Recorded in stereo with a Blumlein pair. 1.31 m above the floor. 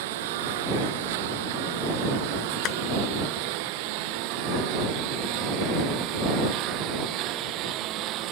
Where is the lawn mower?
50° right; by 8.3 s 35° right.